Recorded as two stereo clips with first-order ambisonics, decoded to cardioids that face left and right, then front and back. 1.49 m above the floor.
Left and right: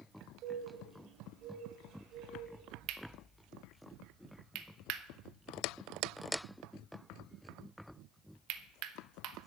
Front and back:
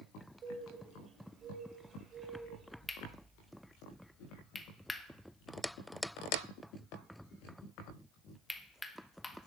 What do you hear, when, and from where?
0.4 s a bird: 120° right, 2 m
2.9 s cutlery clinking: 85° right, 0.9 m